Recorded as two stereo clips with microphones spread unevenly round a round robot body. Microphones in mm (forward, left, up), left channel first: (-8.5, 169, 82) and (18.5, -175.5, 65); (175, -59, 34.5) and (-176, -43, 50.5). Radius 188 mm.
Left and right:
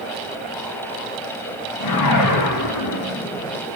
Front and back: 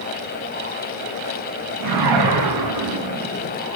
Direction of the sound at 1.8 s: 135° left.